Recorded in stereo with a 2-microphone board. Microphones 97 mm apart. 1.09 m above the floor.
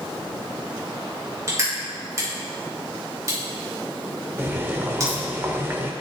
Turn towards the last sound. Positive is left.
turn(degrees=-25)  # may be behind; listen again after turning